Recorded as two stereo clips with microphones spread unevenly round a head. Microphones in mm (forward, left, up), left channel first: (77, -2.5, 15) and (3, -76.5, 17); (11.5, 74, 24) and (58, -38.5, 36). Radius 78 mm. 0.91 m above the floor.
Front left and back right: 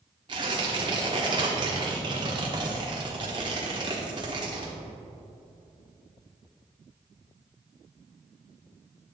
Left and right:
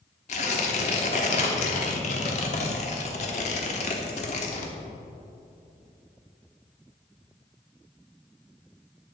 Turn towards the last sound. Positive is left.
turn(degrees=160)